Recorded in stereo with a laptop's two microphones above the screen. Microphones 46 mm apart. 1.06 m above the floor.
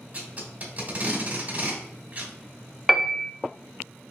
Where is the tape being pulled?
35° right (ahead or behind), 2 m.